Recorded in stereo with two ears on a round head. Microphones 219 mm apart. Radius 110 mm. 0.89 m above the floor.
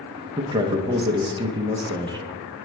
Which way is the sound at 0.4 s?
20° right (ahead or behind).